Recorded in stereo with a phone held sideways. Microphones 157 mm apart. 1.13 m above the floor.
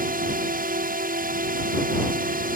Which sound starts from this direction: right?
A drone, at 0.0 s.